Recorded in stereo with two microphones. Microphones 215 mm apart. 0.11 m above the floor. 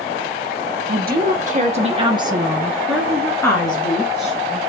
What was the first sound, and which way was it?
A woman speaking, 45° right (ahead or behind).